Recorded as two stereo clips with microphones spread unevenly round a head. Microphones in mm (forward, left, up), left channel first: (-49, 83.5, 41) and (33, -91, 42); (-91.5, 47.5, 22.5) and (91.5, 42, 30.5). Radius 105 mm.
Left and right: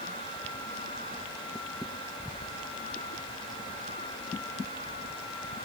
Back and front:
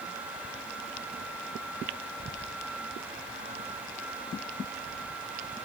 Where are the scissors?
I don't hear scissors.